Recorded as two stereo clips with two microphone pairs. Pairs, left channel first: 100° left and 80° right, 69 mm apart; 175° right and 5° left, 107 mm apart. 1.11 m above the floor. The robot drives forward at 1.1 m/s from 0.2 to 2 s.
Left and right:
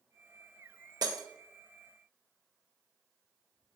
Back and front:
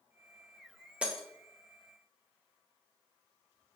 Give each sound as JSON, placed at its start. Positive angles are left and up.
{"t": 1.0, "sound": "breaking glass", "azimuth_deg": -75, "distance_m": 0.7}